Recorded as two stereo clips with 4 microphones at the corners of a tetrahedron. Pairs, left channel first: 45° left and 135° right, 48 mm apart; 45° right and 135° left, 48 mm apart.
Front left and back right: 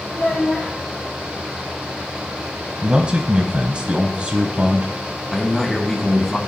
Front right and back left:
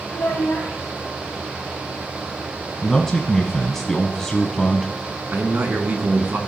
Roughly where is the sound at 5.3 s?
Behind left.